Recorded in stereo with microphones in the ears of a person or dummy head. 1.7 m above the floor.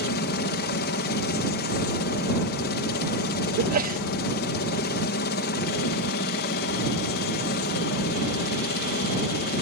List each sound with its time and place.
0.0 s a helicopter: 50° left (ahead or behind)
3.6 s a sneeze: 50° right (ahead or behind)